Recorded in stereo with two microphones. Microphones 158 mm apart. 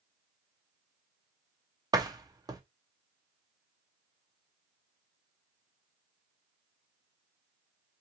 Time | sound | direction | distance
1.9 | a door slam | 25° right (ahead or behind) | 0.5 m